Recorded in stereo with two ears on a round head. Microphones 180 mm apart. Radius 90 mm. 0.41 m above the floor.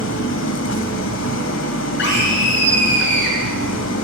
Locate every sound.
0.0 s an engine running: 65° left (ahead or behind), 1.2 m
2.0 s a scream: 60° left (ahead or behind), 5.5 m